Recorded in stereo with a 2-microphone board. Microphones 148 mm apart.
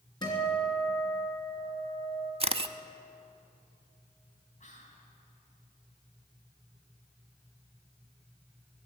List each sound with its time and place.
0.2 s a guitar: 30° left (ahead or behind), 3.5 m
2.4 s a camera shutter: 40° right (ahead or behind), 0.5 m
4.6 s whispering: 55° left (ahead or behind), 3.5 m